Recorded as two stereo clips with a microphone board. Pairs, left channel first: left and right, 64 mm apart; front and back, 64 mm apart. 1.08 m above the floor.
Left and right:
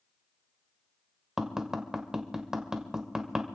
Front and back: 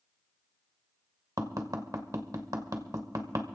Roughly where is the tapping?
Behind.